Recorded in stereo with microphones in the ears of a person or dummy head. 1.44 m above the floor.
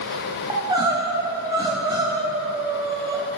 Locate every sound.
0.5 s crying: 15° right (ahead or behind), 0.9 m